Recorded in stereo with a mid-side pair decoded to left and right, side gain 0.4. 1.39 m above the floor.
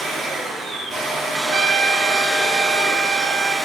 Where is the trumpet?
45° right, 2.5 m.